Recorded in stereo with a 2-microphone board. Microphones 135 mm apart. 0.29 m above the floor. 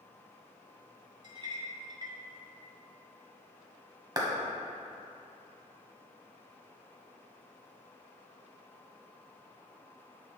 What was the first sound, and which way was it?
A clink, 35° right (ahead or behind).